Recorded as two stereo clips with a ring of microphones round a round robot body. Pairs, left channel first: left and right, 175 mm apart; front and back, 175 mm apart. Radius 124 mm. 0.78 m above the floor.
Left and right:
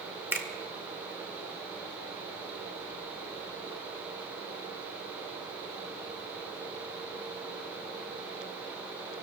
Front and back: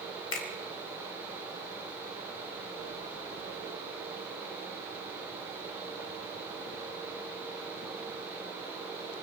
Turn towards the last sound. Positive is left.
turn(degrees=-10)